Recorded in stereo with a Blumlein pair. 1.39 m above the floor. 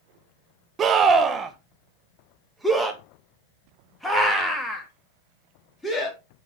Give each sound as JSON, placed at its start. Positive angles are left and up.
{"t": 0.8, "sound": "a scream", "azimuth_deg": -25, "distance_m": 1.5}